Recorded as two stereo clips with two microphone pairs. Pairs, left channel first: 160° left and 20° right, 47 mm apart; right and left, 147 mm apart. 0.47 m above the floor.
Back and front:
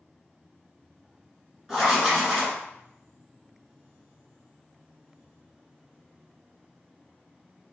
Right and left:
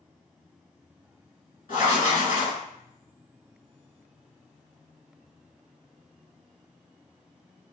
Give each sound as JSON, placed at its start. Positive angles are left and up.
{"t": 1.7, "sound": "writing", "azimuth_deg": -115, "distance_m": 1.7}